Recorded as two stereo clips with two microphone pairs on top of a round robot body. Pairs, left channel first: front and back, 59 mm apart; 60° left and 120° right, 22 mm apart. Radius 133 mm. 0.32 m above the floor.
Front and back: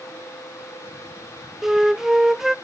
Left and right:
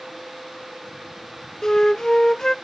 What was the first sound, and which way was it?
A flute, 120° left.